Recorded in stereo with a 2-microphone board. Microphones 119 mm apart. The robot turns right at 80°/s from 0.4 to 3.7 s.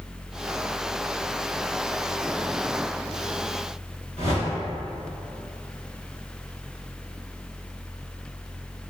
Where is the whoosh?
70° left (ahead or behind), 1.0 m.